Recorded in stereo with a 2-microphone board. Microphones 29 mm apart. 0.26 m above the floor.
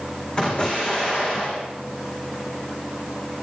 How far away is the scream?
I don't hear a scream.